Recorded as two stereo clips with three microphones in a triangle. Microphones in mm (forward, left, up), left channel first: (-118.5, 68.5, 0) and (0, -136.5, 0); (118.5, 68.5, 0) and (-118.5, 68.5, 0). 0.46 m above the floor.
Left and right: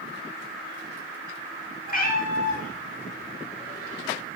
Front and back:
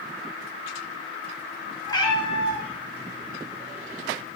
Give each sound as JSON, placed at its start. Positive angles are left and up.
{"t": 1.9, "sound": "a cat meowing", "azimuth_deg": 75, "distance_m": 0.9}